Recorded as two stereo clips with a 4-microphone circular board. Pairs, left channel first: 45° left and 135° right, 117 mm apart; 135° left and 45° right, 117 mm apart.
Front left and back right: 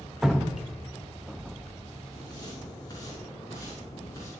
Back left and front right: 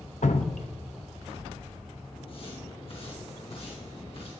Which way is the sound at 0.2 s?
140° left.